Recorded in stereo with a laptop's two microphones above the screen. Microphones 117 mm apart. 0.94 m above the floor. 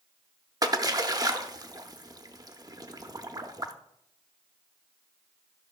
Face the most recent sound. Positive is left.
turn(degrees=-30)  # may be behind; listen again after turning